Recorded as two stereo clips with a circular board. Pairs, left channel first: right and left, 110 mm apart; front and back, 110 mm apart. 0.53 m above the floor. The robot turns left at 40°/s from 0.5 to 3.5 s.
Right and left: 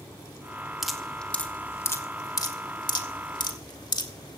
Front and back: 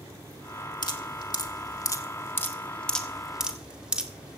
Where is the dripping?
5° left, 1.4 m; by 4.4 s 105° right, 1.4 m.